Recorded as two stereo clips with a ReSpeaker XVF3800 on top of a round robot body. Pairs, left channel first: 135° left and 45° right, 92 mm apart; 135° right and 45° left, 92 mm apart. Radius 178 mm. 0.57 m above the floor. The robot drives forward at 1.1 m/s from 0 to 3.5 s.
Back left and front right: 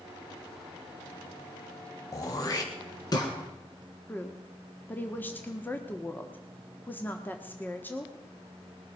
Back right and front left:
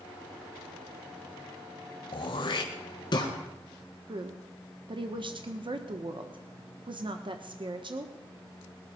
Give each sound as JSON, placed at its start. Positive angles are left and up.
{"t": 2.1, "sound": "throat clearing", "azimuth_deg": -170, "distance_m": 0.7}
{"t": 4.1, "sound": "a woman speaking", "azimuth_deg": 65, "distance_m": 1.3}